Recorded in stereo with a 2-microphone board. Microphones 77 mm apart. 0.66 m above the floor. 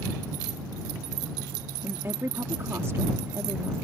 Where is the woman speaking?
35° right (ahead or behind).